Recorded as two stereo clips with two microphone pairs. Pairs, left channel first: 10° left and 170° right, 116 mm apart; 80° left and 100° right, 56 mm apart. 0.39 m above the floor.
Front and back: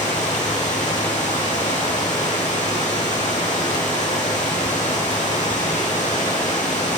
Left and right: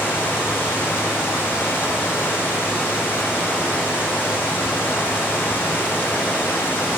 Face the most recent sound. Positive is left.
turn(degrees=25)